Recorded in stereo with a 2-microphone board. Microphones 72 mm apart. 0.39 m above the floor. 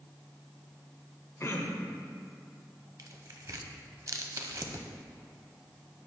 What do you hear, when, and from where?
1.4 s throat clearing: 40° left (ahead or behind), 0.7 m
3.0 s tearing paper: 50° right (ahead or behind), 0.6 m